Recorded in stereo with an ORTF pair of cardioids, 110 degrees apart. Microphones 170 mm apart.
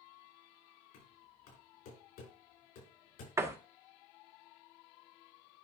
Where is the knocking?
65° left, 6 m.